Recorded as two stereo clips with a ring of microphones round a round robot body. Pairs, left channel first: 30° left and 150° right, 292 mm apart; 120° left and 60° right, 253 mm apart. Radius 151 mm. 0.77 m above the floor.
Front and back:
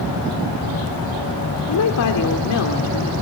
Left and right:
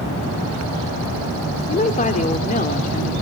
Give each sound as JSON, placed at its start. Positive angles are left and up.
{"t": 1.7, "sound": "a woman speaking", "azimuth_deg": 60, "distance_m": 2.5}